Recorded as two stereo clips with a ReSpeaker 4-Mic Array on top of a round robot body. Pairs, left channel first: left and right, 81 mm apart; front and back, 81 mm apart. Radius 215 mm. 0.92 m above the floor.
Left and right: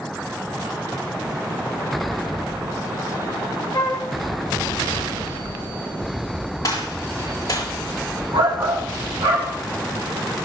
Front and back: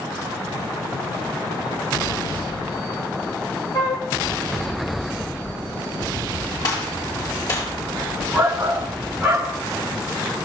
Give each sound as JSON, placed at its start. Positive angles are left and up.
{"t": 3.7, "sound": "a flute", "azimuth_deg": 45, "distance_m": 2.5}
{"t": 6.6, "sound": "a gunshot", "azimuth_deg": 45, "distance_m": 7.5}
{"t": 8.3, "sound": "a shout", "azimuth_deg": -95, "distance_m": 3.5}